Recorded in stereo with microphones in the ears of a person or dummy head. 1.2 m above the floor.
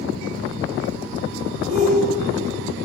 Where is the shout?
40° right (ahead or behind), 5 m.